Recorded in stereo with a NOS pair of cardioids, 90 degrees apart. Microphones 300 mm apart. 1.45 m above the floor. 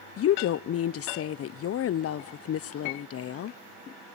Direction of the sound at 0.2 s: 50° left.